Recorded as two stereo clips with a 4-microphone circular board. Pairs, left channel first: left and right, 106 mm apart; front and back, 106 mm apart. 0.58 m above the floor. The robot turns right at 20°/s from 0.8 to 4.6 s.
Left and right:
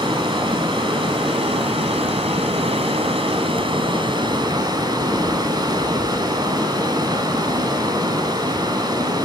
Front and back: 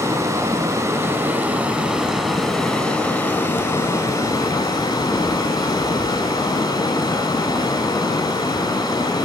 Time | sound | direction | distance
0.0 | running water | 125° right | 0.7 m